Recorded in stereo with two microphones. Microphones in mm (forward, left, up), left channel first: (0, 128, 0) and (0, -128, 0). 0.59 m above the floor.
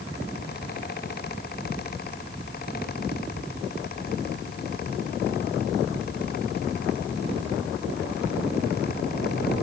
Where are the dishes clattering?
No dishes clattering in this recording.